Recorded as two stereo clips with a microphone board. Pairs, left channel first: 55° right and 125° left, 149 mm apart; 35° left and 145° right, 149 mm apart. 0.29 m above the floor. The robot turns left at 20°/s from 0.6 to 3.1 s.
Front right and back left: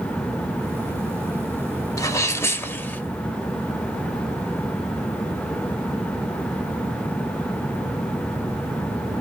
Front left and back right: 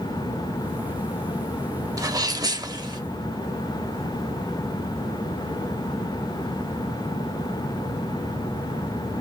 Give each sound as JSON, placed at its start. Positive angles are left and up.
{"t": 2.0, "sound": "a sneeze", "azimuth_deg": -100, "distance_m": 1.0}